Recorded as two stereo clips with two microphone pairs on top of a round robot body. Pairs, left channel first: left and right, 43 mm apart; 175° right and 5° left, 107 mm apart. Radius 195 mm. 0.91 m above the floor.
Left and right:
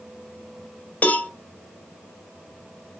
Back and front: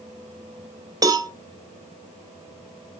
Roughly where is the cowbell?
Ahead left.